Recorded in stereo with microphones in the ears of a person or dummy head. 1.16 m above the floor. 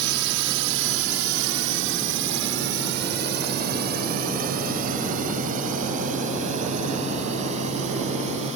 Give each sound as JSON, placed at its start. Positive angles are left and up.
{"t": 0.0, "sound": "a drone", "side_deg": -55}